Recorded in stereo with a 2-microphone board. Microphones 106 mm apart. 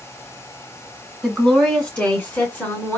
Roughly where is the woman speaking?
Centre.